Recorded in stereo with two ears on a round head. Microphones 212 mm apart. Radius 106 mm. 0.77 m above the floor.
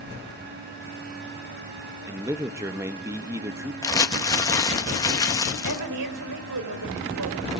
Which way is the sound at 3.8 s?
15° left (ahead or behind).